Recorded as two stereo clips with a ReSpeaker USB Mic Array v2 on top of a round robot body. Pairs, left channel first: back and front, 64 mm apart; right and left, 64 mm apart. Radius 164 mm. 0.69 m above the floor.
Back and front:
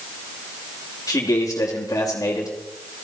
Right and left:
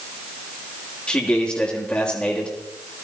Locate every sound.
1.1 s a man speaking: 160° right, 3 m